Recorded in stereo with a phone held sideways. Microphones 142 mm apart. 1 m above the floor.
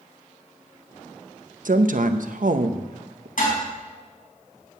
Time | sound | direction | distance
1.6 | a woman speaking | 70° right (ahead or behind) | 0.8 m
3.4 | dishes clattering | 70° left (ahead or behind) | 5 m